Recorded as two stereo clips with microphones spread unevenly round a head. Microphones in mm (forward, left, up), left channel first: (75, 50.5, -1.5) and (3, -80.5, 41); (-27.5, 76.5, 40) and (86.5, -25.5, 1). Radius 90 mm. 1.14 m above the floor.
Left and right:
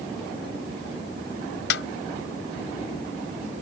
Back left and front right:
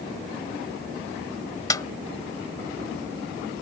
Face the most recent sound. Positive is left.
turn(degrees=70)